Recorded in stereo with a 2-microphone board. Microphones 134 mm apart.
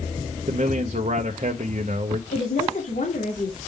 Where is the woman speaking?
85° left, 2.5 m.